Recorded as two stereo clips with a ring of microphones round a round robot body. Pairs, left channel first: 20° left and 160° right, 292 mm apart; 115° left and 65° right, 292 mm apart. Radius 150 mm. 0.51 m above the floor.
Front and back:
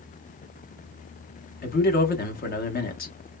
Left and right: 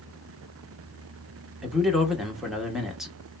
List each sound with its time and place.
1.6 s a man speaking: 20° left, 0.8 m